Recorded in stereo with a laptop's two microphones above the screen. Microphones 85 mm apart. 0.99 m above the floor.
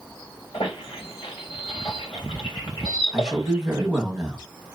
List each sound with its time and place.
0.5 s a squeak: 80° left, 1.8 m
3.1 s a man speaking: 5° right (ahead or behind), 1.1 m